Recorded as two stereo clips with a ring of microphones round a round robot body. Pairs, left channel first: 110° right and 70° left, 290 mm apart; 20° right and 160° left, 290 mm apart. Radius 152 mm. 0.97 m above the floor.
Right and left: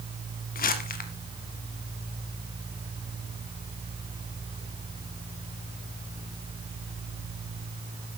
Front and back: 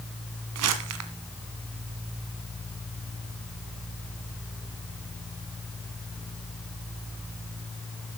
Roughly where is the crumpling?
Behind.